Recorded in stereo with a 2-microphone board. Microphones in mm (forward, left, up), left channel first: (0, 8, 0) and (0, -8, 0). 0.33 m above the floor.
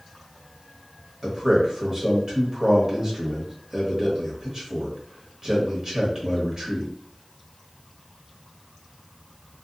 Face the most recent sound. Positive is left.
turn(degrees=-35)  # may be behind; listen again after turning